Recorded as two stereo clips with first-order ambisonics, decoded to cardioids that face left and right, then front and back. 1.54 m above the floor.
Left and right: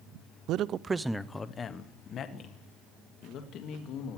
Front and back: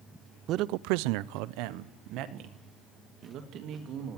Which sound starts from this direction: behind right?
A man speaking, at 0.5 s.